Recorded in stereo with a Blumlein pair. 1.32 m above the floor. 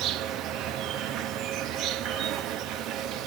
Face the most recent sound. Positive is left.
turn(degrees=-35)